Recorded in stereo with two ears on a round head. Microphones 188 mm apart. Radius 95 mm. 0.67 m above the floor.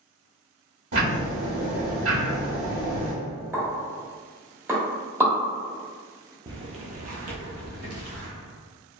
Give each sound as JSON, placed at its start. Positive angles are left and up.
{"t": 0.9, "sound": "ticking", "side_deg": -75, "distance_m": 1.4}
{"t": 3.5, "sound": "a pop", "side_deg": -10, "distance_m": 0.8}
{"t": 6.5, "sound": "footsteps", "side_deg": -20, "distance_m": 0.7}